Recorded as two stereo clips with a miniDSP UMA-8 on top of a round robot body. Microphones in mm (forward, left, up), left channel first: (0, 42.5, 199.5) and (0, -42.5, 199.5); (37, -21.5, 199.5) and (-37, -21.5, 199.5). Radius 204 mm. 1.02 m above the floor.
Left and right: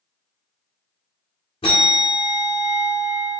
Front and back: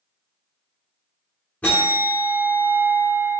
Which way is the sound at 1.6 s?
75° left.